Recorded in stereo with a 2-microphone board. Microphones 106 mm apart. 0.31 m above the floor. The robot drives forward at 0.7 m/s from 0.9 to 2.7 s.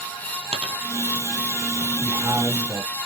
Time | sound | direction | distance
0.5 | a dropped coin | 80° right | 1.4 m
1.9 | a man speaking | 45° right (ahead or behind) | 2 m